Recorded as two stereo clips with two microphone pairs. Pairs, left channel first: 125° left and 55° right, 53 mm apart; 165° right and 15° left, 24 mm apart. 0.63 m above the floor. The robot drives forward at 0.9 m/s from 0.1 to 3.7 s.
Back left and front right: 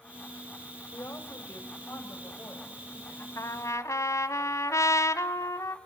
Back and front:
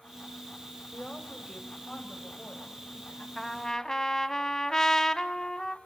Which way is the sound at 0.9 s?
150° left.